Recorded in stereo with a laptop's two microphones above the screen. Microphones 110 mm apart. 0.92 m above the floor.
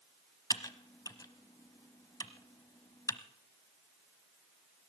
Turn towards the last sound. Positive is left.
turn(degrees=35)  # may be behind; listen again after turning